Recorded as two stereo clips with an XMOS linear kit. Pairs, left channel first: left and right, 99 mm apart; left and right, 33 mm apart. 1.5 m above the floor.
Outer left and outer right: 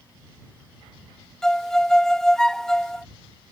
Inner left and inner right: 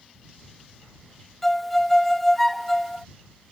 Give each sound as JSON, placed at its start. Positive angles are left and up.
{"t": 1.4, "sound": "a violin", "side_deg": 5}